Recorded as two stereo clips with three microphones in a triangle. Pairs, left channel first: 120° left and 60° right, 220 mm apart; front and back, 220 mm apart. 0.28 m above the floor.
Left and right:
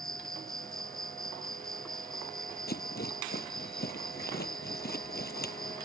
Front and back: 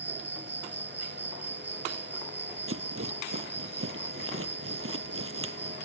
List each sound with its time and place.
0.0 s an insect: 30° left
2.7 s a rattle: 165° left